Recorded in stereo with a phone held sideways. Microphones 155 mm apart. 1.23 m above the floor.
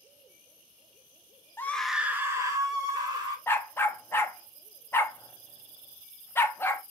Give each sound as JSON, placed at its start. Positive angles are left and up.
{"t": 1.6, "sound": "a scream", "side_deg": 15, "distance_m": 0.6}
{"t": 3.5, "sound": "a dog barking", "side_deg": 15, "distance_m": 0.6}